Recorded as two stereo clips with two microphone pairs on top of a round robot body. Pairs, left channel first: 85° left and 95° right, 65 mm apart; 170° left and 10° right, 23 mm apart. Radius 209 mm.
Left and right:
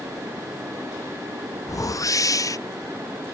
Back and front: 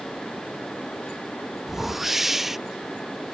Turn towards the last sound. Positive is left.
turn(degrees=75)